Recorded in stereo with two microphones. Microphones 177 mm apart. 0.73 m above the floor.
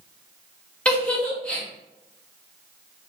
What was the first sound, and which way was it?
A giggle, 5° left (ahead or behind).